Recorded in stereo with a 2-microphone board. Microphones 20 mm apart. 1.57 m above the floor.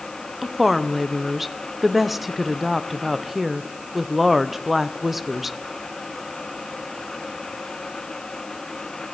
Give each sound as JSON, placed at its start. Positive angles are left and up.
{"t": 0.4, "sound": "a woman speaking", "side_deg": -10, "distance_m": 0.7}